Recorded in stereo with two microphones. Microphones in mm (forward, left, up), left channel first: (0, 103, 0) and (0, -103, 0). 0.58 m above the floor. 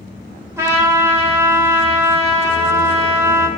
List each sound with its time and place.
0.6 s a trumpet: 15° right (ahead or behind), 2.5 m